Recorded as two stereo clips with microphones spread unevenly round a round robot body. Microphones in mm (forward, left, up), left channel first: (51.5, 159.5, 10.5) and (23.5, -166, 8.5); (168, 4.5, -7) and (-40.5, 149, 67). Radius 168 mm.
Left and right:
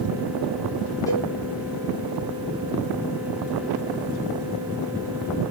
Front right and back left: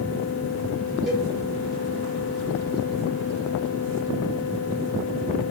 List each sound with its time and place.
1.1 s a cowbell: 20° left, 1.1 m